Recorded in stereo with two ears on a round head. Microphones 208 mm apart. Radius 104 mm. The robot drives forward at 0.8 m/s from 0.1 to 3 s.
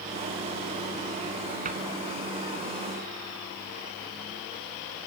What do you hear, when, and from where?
1.6 s a cupboard door: 35° right (ahead or behind), 3 m